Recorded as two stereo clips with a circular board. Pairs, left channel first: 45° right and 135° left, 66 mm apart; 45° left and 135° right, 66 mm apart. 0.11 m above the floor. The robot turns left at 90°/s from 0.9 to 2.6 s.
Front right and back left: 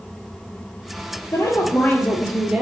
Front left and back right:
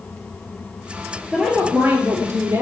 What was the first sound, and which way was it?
A woman speaking, 45° right.